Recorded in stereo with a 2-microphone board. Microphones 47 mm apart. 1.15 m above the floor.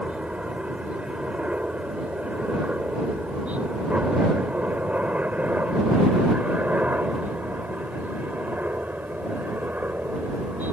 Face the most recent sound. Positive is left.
turn(degrees=-40)  # may be behind; listen again after turning